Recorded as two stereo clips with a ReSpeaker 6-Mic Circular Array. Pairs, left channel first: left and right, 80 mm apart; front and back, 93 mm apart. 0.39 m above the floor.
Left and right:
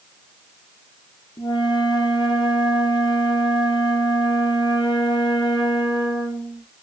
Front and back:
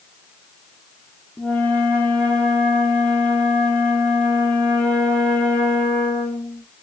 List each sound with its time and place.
1.4 s a flute: 75° left, 2.5 m